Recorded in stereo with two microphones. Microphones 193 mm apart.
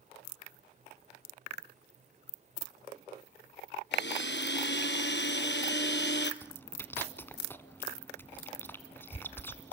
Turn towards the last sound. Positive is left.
turn(degrees=10)  # may be behind; listen again after turning